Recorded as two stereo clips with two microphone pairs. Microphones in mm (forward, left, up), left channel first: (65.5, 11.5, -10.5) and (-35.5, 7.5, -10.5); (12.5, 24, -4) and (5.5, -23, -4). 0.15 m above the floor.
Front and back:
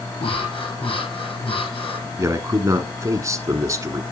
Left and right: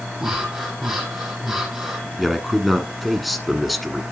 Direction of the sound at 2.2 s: 170° left.